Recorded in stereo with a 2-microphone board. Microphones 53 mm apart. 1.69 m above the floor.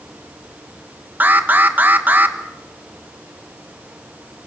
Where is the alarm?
35° right (ahead or behind), 1.4 m.